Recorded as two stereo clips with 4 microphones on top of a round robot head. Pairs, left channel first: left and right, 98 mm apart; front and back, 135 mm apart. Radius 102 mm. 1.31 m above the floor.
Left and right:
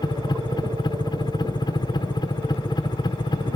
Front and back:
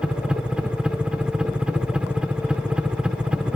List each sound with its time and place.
0.0 s a helicopter: 95° left